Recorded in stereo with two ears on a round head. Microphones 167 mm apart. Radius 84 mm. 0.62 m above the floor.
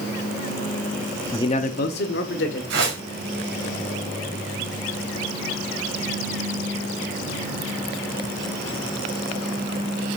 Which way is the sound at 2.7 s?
65° right (ahead or behind).